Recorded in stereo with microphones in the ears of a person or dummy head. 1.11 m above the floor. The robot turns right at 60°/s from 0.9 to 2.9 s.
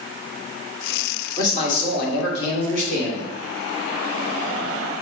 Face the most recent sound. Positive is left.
turn(degrees=115)